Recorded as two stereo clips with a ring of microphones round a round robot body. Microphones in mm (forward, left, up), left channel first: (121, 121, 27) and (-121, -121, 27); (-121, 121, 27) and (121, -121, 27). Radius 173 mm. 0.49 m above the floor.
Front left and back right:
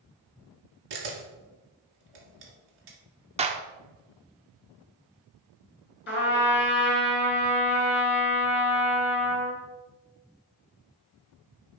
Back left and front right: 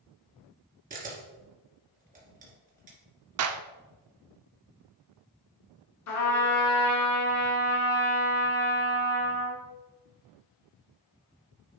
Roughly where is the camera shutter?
Behind right.